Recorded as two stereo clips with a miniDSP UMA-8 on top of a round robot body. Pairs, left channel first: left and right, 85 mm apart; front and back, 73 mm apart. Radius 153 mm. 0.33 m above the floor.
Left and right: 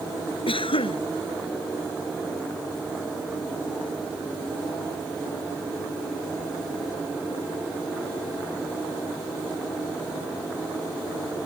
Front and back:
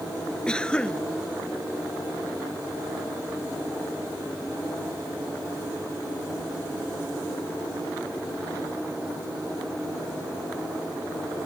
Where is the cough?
80° left.